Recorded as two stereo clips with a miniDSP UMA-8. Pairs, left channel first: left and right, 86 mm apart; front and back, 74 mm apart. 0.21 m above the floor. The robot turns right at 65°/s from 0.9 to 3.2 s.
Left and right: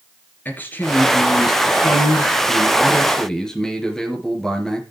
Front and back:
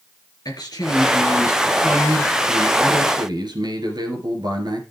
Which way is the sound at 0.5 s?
20° left.